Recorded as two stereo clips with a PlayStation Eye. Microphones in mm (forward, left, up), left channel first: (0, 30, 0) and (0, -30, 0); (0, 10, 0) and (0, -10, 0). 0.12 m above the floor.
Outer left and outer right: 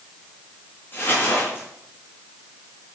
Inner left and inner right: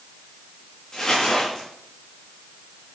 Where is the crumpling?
50° left (ahead or behind), 6.5 m.